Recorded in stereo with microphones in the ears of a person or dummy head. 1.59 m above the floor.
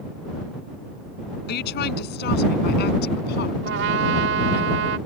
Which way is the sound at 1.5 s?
60° left (ahead or behind).